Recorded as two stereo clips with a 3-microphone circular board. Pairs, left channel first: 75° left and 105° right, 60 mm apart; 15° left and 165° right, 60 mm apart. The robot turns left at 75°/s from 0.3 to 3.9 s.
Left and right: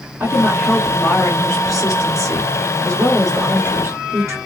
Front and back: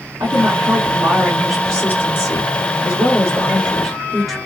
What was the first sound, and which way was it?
A woman speaking, 165° right.